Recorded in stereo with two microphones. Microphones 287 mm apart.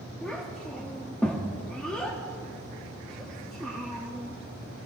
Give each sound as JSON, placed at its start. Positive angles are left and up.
{"t": 0.2, "sound": "a child speaking", "side_deg": 5, "distance_m": 1.6}